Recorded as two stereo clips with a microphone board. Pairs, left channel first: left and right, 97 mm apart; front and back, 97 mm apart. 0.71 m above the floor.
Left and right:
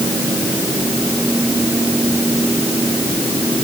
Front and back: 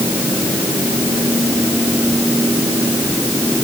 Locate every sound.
Only background noise.